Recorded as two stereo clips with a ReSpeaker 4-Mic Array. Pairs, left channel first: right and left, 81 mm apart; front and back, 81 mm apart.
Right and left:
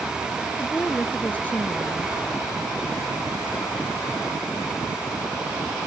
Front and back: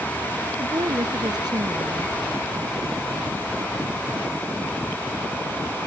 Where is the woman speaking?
155° right.